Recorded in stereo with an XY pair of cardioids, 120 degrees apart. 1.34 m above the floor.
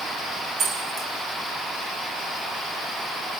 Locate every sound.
0.6 s keys jangling: 55° right, 4 m